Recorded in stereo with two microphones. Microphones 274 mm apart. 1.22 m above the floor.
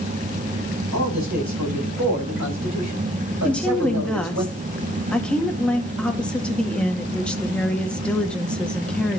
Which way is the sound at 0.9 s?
70° right (ahead or behind).